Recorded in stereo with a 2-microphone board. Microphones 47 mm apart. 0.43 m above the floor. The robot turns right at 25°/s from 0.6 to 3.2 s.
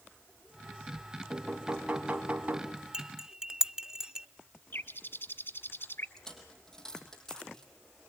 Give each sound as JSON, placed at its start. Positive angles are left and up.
{"t": 1.3, "sound": "knocking", "azimuth_deg": 180, "distance_m": 3.5}
{"t": 2.9, "sound": "cutlery clinking", "side_deg": -20, "distance_m": 0.5}
{"t": 4.7, "sound": "a bird", "side_deg": 55, "distance_m": 1.4}
{"t": 6.2, "sound": "a dropped coin", "side_deg": 15, "distance_m": 4.0}